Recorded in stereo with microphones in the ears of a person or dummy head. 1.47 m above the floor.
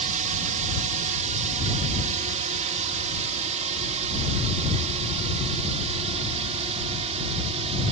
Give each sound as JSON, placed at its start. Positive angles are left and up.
{"t": 0.0, "sound": "a drone", "side_deg": -35}